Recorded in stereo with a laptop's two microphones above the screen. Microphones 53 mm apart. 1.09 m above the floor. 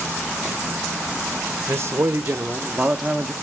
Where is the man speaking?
45° right (ahead or behind), 1.2 m; by 3.3 s 5° right (ahead or behind), 1.2 m.